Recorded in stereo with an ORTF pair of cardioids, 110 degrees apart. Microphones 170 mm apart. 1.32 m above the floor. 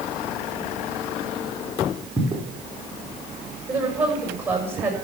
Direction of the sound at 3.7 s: 10° right.